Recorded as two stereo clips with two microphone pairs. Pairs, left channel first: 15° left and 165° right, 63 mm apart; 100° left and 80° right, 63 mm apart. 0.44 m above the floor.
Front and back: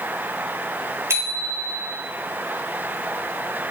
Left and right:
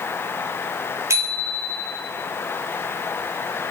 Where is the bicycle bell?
120° right, 7 m.